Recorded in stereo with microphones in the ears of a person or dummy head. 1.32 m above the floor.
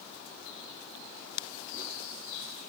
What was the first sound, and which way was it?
Only background noise.